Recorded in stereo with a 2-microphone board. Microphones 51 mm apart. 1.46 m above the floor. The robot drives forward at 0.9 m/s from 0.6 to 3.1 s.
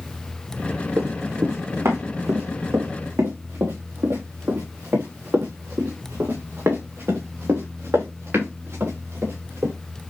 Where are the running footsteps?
70° right (ahead or behind), 4 m; by 9.7 s 55° right (ahead or behind), 9 m.